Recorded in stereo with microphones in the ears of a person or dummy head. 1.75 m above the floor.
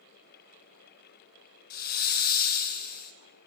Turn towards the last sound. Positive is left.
turn(degrees=45)  # may be behind; listen again after turning